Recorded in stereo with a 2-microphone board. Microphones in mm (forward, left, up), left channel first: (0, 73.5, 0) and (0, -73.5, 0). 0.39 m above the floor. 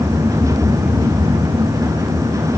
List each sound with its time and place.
Only background noise.